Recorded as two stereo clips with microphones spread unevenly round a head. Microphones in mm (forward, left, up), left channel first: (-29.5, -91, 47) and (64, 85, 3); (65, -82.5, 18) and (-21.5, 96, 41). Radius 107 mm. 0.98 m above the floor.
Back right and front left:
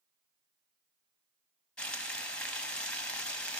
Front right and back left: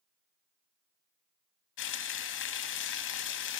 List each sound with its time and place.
1.8 s frying: 30° right, 0.6 m